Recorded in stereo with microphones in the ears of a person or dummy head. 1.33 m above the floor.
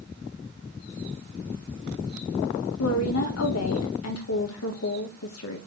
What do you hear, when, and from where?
2.8 s a woman speaking: 85° left, 1.6 m